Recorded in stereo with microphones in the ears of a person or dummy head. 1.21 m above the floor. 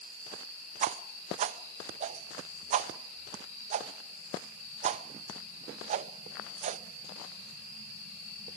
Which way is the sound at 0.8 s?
40° right (ahead or behind).